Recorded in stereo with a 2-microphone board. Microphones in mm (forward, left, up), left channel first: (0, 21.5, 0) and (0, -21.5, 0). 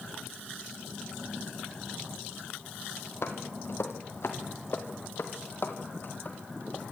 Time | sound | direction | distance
3.2 | footsteps | 65° left (ahead or behind) | 3 m